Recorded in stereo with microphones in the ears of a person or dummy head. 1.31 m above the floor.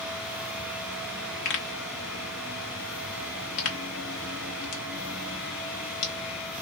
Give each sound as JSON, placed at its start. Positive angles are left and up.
{"t": 1.4, "sound": "a pop", "side_deg": 45, "distance_m": 1.0}